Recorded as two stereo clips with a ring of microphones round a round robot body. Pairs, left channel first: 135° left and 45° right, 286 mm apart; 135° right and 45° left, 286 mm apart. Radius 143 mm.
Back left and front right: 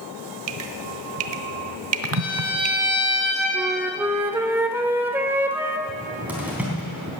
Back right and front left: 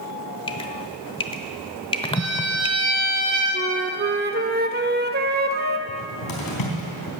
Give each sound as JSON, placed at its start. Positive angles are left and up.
{"t": 0.5, "sound": "dripping", "azimuth_deg": -65, "distance_m": 0.8}
{"t": 2.1, "sound": "a violin", "azimuth_deg": 100, "distance_m": 7.5}
{"t": 3.5, "sound": "a flute", "azimuth_deg": 30, "distance_m": 0.8}
{"t": 5.9, "sound": "a cupboard door", "azimuth_deg": -130, "distance_m": 3.5}